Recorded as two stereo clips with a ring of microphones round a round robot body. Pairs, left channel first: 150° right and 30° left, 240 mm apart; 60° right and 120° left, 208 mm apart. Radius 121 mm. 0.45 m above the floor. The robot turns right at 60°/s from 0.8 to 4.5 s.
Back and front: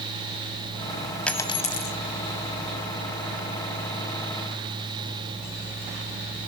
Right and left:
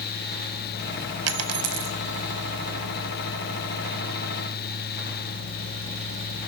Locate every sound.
1.3 s a dropped coin: 125° left, 1.2 m; by 2.0 s 165° left, 1.2 m